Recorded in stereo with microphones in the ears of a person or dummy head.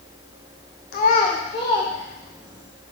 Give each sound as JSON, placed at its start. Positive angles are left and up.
{"t": 0.9, "sound": "a child speaking", "side_deg": 45, "distance_m": 1.0}